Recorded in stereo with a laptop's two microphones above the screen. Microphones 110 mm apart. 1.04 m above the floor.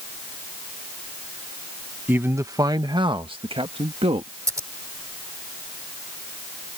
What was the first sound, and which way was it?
A man speaking, 15° right (ahead or behind).